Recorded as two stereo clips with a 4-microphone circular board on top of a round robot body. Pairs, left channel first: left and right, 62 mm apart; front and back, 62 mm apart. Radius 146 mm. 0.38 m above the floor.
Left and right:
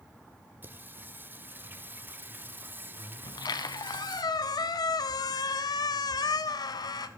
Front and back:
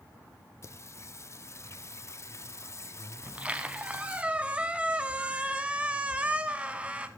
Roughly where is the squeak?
Left.